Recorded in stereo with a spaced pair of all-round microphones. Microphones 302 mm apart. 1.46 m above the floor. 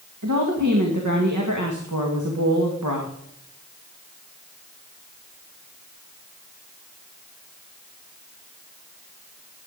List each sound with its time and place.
0.2 s a woman speaking: 75° right (ahead or behind), 2.0 m